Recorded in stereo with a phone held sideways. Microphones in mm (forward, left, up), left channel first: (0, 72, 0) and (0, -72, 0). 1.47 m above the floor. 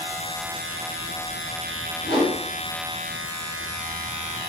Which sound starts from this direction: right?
A whoosh, at 2.0 s.